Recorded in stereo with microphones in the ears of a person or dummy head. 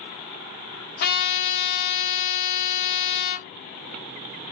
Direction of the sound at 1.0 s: 55° left (ahead or behind).